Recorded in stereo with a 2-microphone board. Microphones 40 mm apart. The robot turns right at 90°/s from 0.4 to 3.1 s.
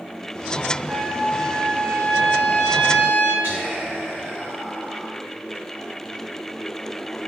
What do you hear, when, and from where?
0.9 s a trumpet: 150° left, 1.7 m; by 3.3 s 10° right, 1.7 m
3.4 s whispering: 35° right (ahead or behind), 1.8 m